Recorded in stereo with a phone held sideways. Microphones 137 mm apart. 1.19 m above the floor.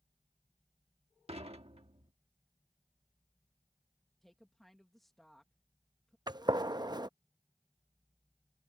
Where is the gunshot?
30° right (ahead or behind).